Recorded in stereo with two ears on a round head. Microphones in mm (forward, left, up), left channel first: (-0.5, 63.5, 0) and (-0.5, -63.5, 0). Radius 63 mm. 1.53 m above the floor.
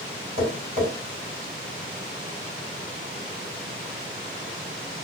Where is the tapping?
45° right (ahead or behind), 1.6 m.